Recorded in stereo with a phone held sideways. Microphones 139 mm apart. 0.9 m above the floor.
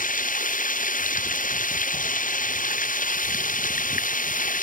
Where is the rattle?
I don't hear a rattle.